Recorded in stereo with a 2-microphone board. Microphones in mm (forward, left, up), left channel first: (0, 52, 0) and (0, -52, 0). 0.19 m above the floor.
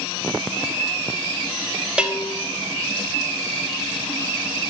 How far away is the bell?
About 0.9 m.